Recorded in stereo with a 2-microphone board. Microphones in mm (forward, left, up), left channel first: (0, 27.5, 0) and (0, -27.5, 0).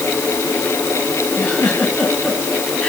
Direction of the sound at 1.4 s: 15° left (ahead or behind).